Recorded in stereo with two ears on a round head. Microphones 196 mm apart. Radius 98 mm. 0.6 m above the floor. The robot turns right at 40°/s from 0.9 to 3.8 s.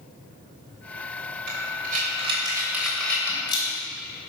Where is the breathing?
55° right (ahead or behind), 3 m; by 3.7 s 30° left (ahead or behind), 3 m.